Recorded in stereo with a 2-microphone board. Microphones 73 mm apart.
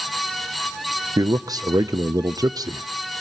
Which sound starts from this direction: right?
A man speaking, at 1.2 s.